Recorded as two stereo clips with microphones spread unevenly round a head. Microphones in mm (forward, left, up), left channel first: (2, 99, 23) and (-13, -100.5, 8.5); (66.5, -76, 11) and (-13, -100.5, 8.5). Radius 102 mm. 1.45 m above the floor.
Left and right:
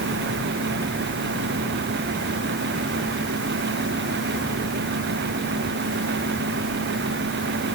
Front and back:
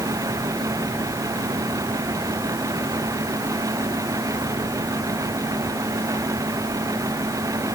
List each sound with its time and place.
Only background noise.